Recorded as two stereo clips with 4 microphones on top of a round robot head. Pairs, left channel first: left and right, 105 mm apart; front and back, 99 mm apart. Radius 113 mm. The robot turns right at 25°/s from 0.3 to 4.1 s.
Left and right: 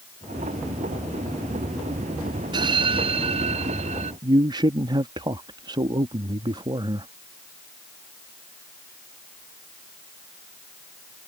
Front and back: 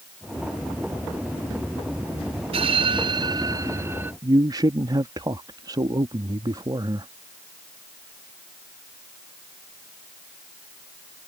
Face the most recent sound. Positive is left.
turn(degrees=-130)